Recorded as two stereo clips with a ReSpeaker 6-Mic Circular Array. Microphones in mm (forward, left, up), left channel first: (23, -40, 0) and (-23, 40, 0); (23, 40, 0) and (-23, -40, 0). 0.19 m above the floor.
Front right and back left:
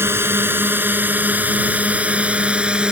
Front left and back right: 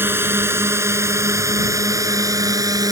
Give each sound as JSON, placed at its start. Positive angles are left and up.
{"t": 0.0, "sound": "a drone", "azimuth_deg": 180}